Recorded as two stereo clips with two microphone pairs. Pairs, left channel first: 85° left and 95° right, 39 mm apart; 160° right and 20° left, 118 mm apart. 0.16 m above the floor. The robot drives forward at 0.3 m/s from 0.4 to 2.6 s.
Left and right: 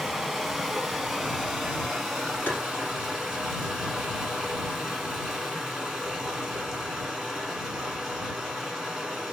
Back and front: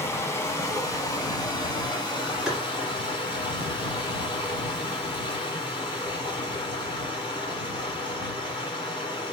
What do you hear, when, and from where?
0.0 s running water: 175° right, 1.1 m; by 9.3 s straight behind, 1.5 m
2.5 s tapping: 105° left, 1.5 m